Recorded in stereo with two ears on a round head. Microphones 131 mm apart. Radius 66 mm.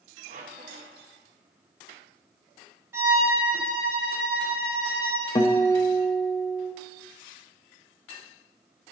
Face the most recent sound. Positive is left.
turn(degrees=25)  # may be behind; listen again after turning